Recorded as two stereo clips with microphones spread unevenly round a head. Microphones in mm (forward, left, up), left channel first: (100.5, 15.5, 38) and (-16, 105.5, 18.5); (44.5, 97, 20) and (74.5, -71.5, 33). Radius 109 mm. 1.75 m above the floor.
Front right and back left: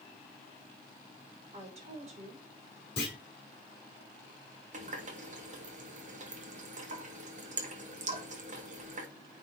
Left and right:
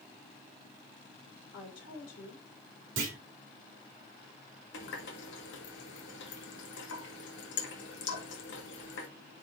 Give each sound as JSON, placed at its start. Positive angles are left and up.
{"t": 1.5, "sound": "a woman speaking", "azimuth_deg": 100, "distance_m": 3.5}
{"t": 3.0, "sound": "a clunk", "azimuth_deg": -100, "distance_m": 3.0}
{"t": 4.7, "sound": "a running tap", "azimuth_deg": 110, "distance_m": 1.8}